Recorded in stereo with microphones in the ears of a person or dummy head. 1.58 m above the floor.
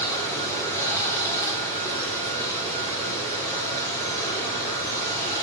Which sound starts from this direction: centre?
Running water, at 0.0 s.